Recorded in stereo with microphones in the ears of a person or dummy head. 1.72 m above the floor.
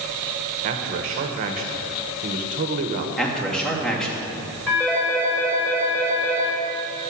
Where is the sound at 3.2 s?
5° left (ahead or behind), 2.5 m.